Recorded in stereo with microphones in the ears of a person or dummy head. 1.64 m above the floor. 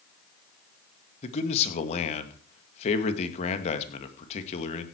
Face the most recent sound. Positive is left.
turn(degrees=40)  # may be behind; listen again after turning